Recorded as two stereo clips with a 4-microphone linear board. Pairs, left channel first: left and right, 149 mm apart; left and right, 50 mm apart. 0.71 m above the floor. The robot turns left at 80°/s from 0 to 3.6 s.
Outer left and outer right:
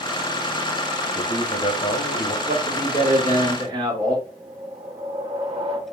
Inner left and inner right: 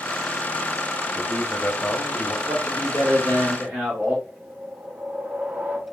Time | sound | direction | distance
1.1 | a man speaking | 150° left | 1.1 m
2.5 | a man speaking | 50° right | 1.8 m
4.3 | a whoosh | 35° right (ahead or behind) | 0.8 m